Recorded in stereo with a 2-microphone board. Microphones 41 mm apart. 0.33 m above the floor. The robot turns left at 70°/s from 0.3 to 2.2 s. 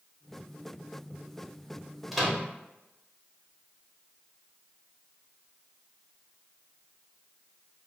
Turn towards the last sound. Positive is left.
turn(degrees=0)  # may be behind; listen again after turning